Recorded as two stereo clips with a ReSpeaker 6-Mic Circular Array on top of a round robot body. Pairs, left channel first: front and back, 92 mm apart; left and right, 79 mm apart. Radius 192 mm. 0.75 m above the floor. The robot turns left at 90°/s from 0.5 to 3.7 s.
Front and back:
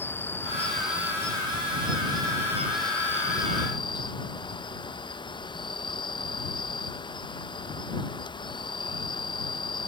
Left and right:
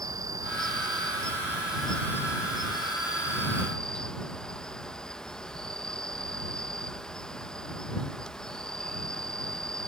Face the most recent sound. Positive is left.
turn(degrees=10)